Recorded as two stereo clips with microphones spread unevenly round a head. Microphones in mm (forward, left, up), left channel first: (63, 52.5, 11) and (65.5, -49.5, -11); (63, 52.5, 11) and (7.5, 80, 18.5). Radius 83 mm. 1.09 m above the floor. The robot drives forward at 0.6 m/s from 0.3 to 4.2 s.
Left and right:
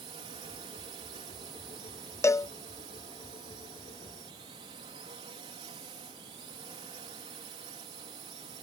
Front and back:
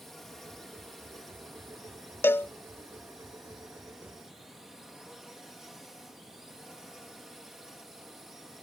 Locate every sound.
0.0 s a drone: 110° right; by 8.6 s 120° right
2.2 s a cowbell: 25° left; by 2.5 s 35° left